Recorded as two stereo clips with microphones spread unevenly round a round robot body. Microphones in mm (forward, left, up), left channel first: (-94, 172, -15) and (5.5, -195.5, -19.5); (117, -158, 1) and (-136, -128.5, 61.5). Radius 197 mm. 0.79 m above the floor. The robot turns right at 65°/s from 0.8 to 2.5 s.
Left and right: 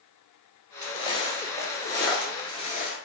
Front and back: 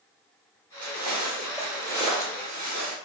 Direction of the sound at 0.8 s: 165° left.